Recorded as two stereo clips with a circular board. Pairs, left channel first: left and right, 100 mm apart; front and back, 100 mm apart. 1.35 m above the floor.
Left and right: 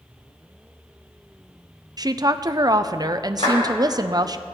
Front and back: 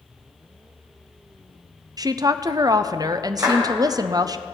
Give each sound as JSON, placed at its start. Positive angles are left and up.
{"t": 2.0, "sound": "a woman speaking", "azimuth_deg": -135, "distance_m": 0.5}
{"t": 3.4, "sound": "a clap", "azimuth_deg": 115, "distance_m": 5.0}